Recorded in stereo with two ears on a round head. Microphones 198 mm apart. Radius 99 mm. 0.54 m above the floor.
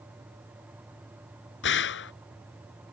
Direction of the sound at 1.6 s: 55° left (ahead or behind).